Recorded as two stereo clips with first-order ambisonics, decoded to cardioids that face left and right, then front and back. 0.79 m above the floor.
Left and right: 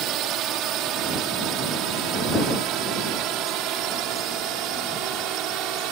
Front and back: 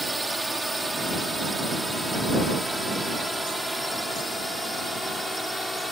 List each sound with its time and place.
0.0 s a drone: 95° right; by 5.9 s 90° right